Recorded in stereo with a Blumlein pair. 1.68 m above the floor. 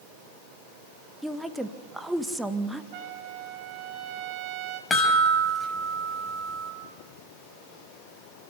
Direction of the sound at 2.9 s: 45° right.